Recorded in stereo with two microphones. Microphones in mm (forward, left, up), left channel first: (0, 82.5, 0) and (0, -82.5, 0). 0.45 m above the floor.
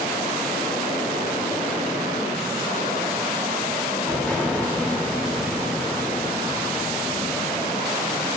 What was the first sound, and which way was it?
An explosion, 10° left (ahead or behind).